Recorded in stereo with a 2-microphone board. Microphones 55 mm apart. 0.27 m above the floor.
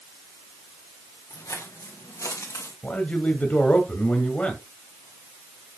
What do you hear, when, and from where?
1.3 s footsteps: 85° left, 4 m; by 2.7 s 75° left (ahead or behind), 4.5 m
2.8 s a man speaking: 25° left (ahead or behind), 1.7 m